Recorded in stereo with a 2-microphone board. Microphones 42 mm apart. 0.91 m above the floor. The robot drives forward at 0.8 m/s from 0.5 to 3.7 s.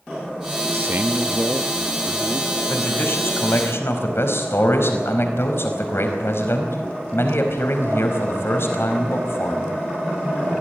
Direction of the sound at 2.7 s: 60° left (ahead or behind).